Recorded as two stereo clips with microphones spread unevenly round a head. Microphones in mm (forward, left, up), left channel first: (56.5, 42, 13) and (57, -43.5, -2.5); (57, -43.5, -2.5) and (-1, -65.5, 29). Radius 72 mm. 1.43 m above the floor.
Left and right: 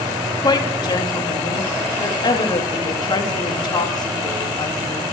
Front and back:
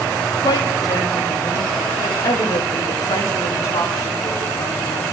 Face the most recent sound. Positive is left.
turn(degrees=55)